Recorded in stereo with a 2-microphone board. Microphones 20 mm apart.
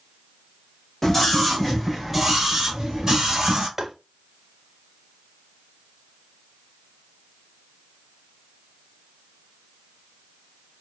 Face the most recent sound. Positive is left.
turn(degrees=-25)  # may be behind; listen again after turning